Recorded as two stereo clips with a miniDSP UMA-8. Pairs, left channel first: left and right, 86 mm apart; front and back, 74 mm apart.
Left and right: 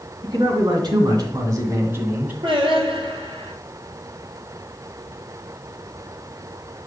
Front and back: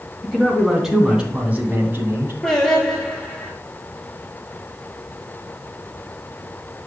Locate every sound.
0.2 s a man speaking: 90° right, 3 m; by 2.3 s 150° right, 2.0 m
2.4 s singing: 80° right, 3 m